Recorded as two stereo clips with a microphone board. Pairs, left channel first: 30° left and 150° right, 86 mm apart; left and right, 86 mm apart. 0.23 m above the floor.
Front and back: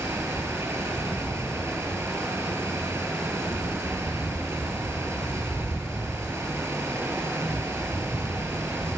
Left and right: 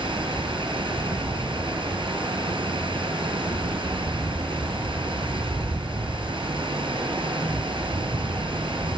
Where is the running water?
90° right, 3.5 m.